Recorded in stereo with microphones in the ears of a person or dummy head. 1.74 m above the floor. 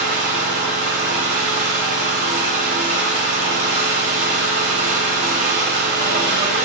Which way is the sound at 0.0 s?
35° right (ahead or behind).